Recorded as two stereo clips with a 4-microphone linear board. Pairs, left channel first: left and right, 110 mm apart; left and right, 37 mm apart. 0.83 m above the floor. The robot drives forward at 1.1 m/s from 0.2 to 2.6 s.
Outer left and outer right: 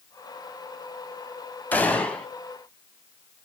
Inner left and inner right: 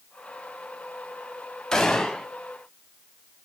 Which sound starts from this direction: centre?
A gunshot, at 1.7 s.